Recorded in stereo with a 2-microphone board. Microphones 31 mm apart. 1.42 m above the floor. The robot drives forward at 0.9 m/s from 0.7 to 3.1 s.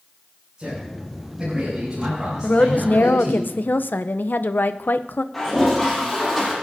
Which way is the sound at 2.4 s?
45° left (ahead or behind).